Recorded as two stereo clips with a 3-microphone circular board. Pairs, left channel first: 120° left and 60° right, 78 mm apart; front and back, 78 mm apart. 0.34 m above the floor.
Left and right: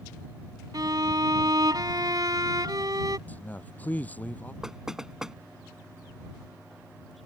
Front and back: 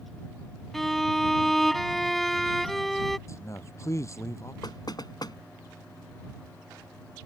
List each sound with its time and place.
0.7 s a violin: 85° right
3.3 s a man speaking: 50° left
4.6 s knocking: 25° left